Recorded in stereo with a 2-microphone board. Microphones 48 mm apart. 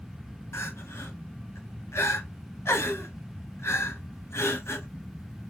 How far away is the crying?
About 1.5 m.